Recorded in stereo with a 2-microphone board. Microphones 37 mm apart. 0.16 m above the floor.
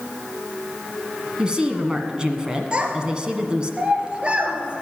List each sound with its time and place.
1.4 s a woman speaking: 25° right (ahead or behind), 1.5 m
2.7 s a child speaking: 25° right (ahead or behind), 2.5 m